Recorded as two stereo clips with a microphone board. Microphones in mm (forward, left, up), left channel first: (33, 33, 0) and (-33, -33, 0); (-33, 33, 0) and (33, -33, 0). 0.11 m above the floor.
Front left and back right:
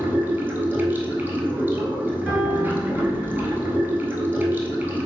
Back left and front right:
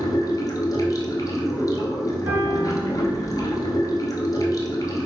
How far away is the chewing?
I don't hear chewing.